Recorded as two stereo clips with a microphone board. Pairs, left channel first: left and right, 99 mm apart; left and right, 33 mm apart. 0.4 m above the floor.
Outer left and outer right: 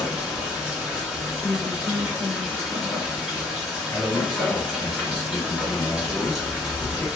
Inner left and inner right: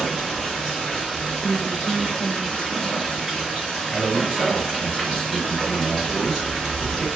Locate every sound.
0.0 s running water: centre (ahead or behind), 1.7 m
1.4 s a woman speaking: 15° right (ahead or behind), 1.2 m
3.9 s a man speaking: 10° left (ahead or behind), 1.8 m